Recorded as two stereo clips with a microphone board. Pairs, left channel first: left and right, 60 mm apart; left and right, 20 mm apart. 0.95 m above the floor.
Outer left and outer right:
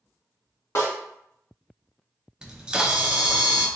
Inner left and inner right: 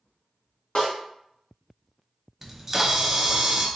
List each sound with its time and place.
0.8 s a snare drum: 55° left (ahead or behind), 1.6 m
2.4 s a camera shutter: 15° right (ahead or behind), 0.6 m